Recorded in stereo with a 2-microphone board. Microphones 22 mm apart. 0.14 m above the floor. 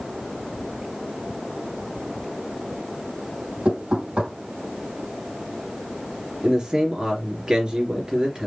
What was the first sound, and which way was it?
Knocking, 75° right (ahead or behind).